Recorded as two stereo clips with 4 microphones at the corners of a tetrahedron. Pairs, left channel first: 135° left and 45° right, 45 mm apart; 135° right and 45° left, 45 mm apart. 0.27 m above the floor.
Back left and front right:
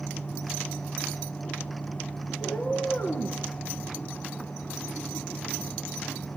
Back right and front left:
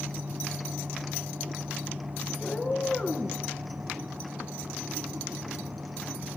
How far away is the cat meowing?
About 2 m.